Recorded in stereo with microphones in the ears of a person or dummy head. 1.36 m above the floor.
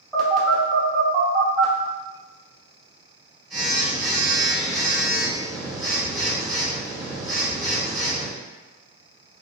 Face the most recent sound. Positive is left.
turn(degrees=10)  # may be behind; listen again after turning